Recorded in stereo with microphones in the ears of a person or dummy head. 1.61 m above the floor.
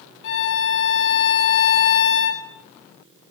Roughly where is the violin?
Left.